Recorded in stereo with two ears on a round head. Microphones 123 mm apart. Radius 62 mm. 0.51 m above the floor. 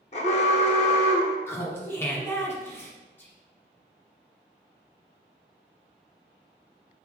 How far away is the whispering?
About 0.7 m.